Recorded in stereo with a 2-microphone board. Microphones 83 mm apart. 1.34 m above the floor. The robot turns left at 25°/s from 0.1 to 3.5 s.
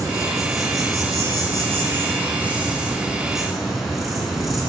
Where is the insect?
95° right, 1.7 m; by 4.7 s straight behind, 1.7 m.